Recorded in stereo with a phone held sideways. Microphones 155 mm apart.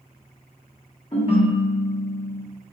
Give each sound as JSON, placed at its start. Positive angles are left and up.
{"t": 1.1, "sound": "a ringtone", "side_deg": 40, "distance_m": 1.0}